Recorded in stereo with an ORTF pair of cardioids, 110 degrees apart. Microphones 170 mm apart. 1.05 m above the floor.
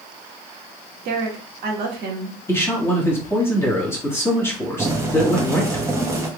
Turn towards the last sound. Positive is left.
turn(degrees=-15)